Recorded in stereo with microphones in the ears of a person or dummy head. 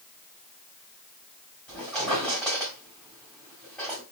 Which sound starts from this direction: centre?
A squeak, at 1.7 s.